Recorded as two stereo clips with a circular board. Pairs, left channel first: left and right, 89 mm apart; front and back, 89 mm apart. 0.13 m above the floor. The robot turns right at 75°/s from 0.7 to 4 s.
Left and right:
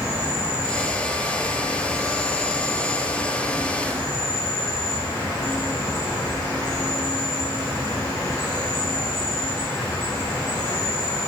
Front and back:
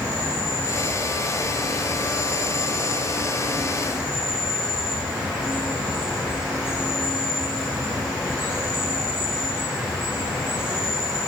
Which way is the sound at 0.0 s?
145° right.